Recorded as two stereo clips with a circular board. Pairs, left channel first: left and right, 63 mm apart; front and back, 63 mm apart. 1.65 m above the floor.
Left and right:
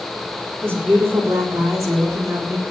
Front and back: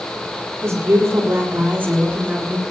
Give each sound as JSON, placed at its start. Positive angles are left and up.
{"t": 0.6, "sound": "a woman speaking", "azimuth_deg": -135, "distance_m": 4.5}